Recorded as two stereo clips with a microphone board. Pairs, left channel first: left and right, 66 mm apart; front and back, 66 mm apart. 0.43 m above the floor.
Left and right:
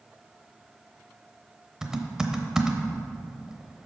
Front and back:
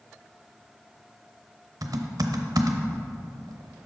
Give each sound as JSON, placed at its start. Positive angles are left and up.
{"t": 1.8, "sound": "typing on a keyboard", "azimuth_deg": -170, "distance_m": 0.8}